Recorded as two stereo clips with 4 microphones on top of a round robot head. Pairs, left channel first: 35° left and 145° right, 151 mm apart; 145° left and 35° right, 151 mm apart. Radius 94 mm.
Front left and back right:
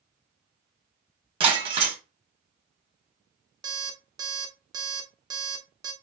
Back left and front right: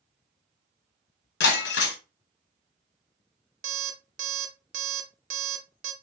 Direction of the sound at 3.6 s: 75° right.